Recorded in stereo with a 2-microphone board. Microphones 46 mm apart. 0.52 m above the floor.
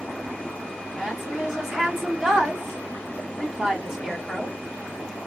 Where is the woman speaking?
10° right (ahead or behind), 2.0 m.